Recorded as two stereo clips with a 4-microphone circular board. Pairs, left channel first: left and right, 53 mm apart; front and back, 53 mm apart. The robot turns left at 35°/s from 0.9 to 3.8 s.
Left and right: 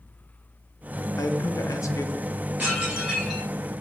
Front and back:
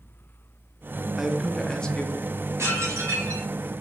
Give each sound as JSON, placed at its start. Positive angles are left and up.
{"t": 1.2, "sound": "a man speaking", "azimuth_deg": 100, "distance_m": 0.5}
{"t": 2.6, "sound": "dishes clattering", "azimuth_deg": -150, "distance_m": 1.3}